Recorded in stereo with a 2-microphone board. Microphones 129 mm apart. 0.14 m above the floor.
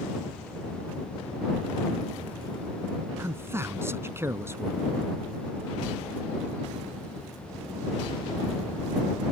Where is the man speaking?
20° right (ahead or behind).